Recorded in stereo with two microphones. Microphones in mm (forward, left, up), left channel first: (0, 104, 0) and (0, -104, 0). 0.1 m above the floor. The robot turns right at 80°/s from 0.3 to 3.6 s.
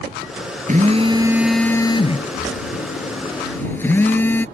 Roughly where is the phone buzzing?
Ahead right.